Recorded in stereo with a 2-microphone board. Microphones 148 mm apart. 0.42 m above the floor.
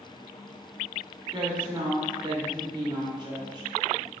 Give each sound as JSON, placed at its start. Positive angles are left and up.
{"t": 1.3, "sound": "a woman speaking", "side_deg": -30, "distance_m": 0.9}